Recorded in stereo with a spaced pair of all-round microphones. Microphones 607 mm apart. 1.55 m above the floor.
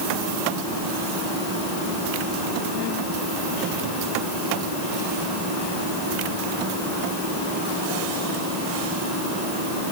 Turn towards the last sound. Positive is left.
No sound to turn to.